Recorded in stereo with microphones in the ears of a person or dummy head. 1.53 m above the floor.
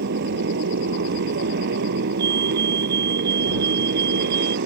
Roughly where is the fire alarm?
Right.